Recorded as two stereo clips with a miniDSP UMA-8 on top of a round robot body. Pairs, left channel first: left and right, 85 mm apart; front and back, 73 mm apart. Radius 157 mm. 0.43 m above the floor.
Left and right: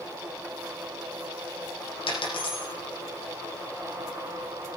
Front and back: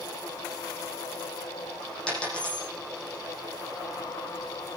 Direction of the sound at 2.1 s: 75° left.